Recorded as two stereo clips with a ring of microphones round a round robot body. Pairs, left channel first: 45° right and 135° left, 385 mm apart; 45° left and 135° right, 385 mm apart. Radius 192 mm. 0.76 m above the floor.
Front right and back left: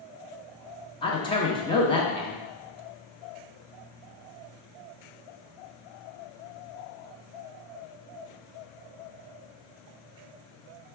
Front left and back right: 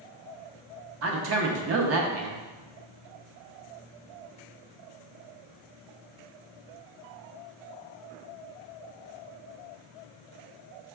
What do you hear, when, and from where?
1.0 s a man speaking: 115° right, 0.5 m